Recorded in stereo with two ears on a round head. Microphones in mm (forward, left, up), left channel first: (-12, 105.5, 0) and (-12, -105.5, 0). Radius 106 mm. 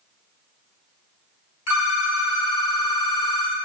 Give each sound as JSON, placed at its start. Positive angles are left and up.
{"t": 1.7, "sound": "a phone ringing", "side_deg": 65, "distance_m": 3.5}